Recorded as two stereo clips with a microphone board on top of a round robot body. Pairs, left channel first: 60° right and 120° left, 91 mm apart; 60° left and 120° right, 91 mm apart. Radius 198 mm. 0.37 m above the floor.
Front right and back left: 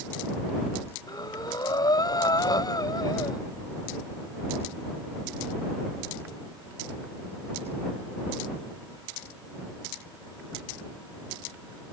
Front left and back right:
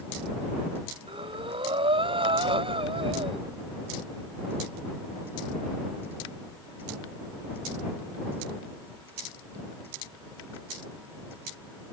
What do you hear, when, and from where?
1.1 s breathing: 105° right